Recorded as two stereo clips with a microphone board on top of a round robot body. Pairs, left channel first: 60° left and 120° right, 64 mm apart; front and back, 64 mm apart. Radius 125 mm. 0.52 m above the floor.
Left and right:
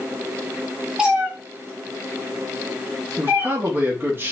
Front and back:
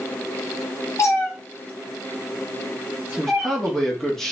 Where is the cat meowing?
45° right, 0.9 m; by 3.8 s 130° right, 1.6 m.